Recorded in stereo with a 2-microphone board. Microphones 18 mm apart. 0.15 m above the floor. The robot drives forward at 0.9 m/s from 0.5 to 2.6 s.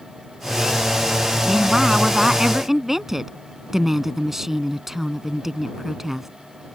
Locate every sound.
1.4 s a woman speaking: 20° right (ahead or behind)